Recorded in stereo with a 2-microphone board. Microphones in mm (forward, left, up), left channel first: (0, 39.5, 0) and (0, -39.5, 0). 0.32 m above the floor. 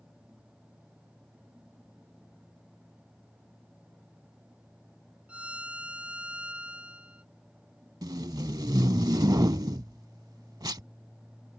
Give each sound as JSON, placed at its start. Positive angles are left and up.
{"t": 5.3, "sound": "a violin", "side_deg": -15}
{"t": 8.0, "sound": "tape being pulled", "side_deg": -60}